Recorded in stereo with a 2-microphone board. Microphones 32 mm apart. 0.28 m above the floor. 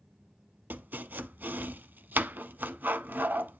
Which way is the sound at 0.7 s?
80° right.